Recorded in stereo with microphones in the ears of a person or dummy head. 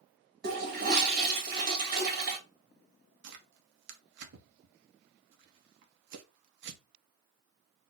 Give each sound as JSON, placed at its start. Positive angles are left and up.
{"t": 0.4, "sound": "a toilet flushing", "side_deg": -55, "distance_m": 2.0}
{"t": 3.2, "sound": "tearing paper", "side_deg": -65, "distance_m": 1.1}